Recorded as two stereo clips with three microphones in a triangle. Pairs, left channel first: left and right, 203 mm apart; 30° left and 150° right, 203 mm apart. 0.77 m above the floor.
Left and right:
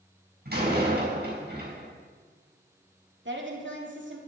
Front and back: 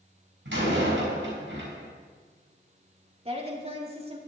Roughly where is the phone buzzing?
I don't hear a phone buzzing.